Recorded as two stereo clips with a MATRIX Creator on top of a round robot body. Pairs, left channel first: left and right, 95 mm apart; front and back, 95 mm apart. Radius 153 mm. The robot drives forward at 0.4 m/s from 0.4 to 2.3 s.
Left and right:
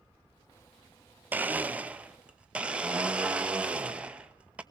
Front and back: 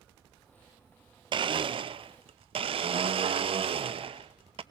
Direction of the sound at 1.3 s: 160° right.